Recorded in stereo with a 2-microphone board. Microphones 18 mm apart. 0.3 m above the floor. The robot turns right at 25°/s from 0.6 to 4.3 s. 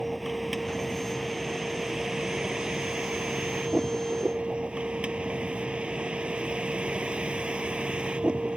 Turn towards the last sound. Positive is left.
turn(degrees=-90)